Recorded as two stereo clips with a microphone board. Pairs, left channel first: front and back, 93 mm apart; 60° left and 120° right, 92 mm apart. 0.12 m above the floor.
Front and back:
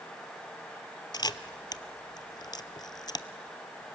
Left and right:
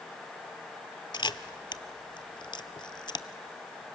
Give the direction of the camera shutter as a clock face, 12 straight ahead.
11 o'clock.